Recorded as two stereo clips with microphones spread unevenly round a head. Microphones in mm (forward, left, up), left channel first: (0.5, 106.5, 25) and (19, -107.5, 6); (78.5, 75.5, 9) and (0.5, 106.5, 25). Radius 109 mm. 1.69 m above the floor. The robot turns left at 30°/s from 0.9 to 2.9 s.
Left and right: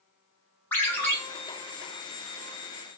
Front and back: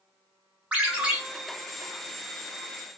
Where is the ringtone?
150° left, 0.5 m; by 1.2 s 140° left, 0.5 m.